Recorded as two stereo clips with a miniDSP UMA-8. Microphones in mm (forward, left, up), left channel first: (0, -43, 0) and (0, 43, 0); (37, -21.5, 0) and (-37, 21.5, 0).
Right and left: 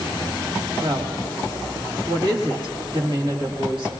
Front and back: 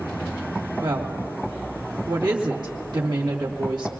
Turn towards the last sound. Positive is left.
turn(degrees=115)